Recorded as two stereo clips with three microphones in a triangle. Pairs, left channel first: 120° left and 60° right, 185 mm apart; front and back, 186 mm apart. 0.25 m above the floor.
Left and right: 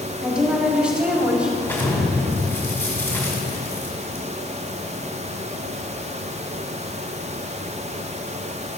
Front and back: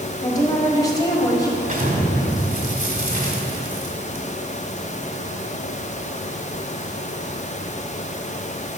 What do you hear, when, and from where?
0.2 s a woman speaking: 10° left, 1.4 m
1.6 s an explosion: 170° right, 1.6 m